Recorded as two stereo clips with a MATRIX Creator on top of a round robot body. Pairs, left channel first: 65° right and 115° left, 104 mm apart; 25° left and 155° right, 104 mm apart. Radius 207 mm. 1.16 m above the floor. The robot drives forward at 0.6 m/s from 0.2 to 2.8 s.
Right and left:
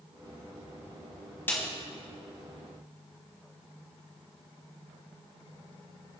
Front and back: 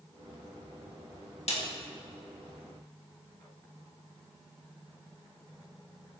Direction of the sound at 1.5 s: 5° left.